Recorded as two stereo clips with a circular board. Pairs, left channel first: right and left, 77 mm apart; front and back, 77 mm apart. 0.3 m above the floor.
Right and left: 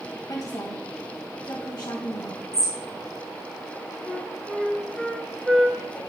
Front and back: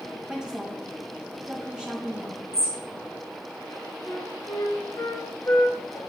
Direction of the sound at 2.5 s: 45° right.